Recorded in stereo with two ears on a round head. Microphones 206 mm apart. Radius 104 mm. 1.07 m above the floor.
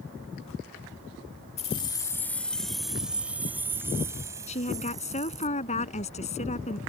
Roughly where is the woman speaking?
Left.